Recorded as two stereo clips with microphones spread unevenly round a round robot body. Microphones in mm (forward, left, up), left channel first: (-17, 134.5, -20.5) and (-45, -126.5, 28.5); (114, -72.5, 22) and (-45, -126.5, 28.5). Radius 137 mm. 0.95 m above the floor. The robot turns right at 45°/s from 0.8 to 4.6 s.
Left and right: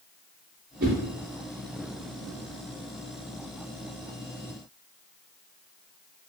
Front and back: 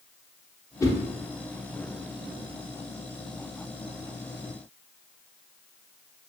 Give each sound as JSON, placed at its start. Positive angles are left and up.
{"t": 0.8, "sound": "a whoosh", "azimuth_deg": -55, "distance_m": 0.6}